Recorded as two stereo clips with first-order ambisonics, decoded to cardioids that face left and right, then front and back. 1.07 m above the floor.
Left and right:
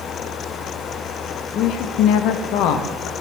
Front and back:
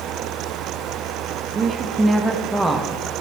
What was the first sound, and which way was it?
A woman speaking, 120° left.